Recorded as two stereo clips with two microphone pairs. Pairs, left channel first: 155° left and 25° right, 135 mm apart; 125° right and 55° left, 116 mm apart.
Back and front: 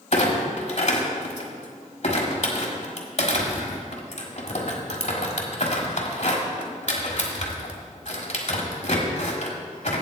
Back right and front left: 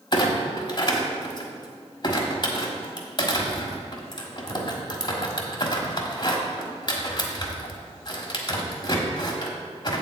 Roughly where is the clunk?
Behind.